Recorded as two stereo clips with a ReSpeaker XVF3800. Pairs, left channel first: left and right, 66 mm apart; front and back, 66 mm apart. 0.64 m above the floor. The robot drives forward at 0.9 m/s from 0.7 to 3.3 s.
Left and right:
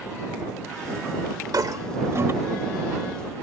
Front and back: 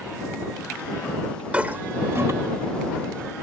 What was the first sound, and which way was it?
A toilet flushing, 110° right.